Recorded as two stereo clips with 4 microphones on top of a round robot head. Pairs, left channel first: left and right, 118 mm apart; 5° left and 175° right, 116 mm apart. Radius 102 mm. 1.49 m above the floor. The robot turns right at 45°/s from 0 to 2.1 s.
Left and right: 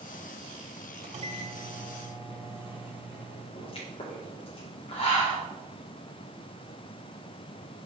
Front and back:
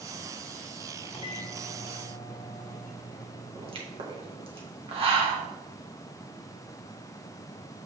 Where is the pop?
145° left, 1.9 m.